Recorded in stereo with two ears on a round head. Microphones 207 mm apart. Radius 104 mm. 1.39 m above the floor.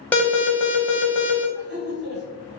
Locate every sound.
0.1 s an alarm: 10° left (ahead or behind), 0.7 m
1.6 s laughter: 50° right (ahead or behind), 1.2 m